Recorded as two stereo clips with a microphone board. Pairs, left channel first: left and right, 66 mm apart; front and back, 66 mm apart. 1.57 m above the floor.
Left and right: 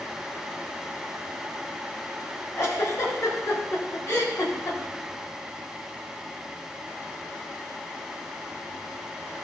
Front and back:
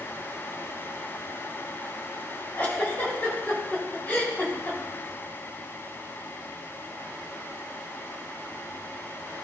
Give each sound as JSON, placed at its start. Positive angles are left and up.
{"t": 2.6, "sound": "a giggle", "azimuth_deg": 60, "distance_m": 2.5}